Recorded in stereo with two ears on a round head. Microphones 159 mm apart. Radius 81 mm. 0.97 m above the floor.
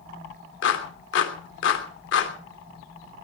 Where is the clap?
70° left (ahead or behind), 3 m.